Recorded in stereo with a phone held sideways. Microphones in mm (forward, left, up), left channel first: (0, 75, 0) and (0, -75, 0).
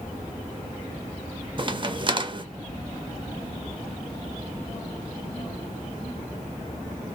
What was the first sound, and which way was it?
A crack, 35° right (ahead or behind).